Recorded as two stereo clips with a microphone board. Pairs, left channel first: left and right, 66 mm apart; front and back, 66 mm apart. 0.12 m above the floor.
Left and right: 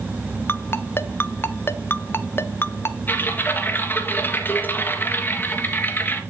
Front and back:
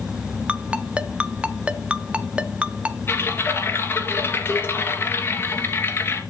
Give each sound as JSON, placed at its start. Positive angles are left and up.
{"t": 0.5, "sound": "a ringtone", "azimuth_deg": 120, "distance_m": 0.7}
{"t": 3.1, "sound": "typing on a keyboard", "azimuth_deg": 45, "distance_m": 2.5}